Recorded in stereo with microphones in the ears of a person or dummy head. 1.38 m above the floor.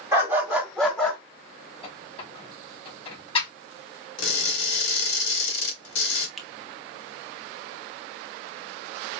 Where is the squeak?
35° left (ahead or behind), 2.5 m.